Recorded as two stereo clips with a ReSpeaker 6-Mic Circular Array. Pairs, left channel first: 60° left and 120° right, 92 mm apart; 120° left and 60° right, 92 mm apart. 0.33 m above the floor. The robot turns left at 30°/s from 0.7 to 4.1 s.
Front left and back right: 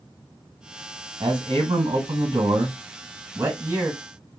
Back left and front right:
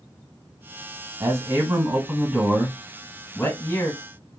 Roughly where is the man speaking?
Right.